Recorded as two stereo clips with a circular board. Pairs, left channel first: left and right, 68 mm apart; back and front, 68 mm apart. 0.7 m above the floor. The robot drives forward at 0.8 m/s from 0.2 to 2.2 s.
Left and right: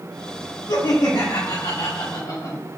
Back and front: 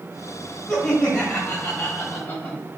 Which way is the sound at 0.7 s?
100° left.